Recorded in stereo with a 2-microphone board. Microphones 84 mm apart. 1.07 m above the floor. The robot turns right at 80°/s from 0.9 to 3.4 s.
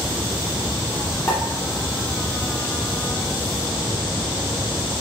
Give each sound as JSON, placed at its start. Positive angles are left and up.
{"t": 1.3, "sound": "a pop", "side_deg": 30, "distance_m": 2.5}